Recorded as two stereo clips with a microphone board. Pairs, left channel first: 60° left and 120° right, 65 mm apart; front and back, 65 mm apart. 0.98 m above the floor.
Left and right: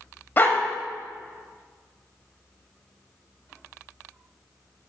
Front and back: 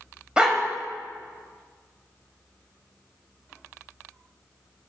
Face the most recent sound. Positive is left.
turn(degrees=110)